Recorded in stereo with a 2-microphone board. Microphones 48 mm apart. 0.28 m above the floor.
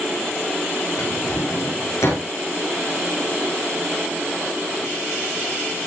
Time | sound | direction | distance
1.0 | a drawer | 80° left | 9.5 m